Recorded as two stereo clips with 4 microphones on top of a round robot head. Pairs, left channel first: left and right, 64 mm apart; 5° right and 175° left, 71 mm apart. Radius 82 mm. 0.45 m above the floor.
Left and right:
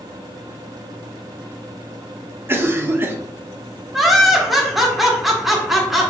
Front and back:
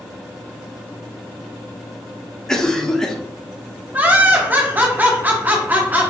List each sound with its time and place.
2.5 s a cough: 80° right, 0.9 m
3.9 s laughter: 175° right, 1.3 m